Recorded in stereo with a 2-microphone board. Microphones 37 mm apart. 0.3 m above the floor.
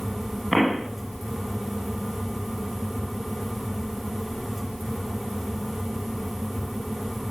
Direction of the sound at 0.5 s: Centre (ahead or behind).